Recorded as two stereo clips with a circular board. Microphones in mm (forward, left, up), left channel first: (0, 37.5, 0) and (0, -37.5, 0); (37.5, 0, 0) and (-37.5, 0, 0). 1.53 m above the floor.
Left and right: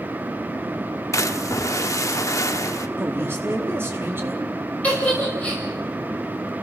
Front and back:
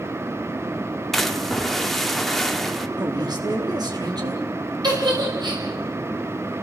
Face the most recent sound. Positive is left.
turn(degrees=160)